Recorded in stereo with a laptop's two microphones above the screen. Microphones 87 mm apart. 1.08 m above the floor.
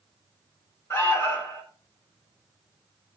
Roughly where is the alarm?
Left.